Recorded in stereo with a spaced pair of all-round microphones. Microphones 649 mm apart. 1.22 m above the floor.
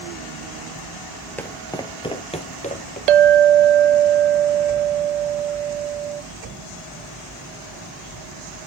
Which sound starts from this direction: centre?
Footsteps, at 1.4 s.